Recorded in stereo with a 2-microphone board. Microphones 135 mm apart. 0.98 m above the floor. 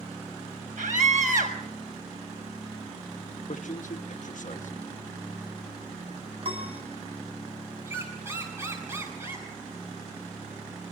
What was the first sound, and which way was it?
A scream, 75° right (ahead or behind).